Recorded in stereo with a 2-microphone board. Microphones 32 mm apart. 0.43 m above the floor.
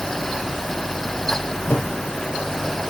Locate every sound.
1.7 s a whoosh: 65° left (ahead or behind), 3 m